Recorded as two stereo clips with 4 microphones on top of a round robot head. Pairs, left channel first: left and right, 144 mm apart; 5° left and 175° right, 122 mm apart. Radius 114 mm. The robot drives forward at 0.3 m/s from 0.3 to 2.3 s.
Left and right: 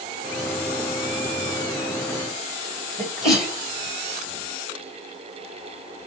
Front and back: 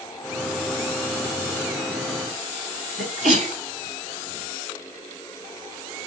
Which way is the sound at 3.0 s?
175° right.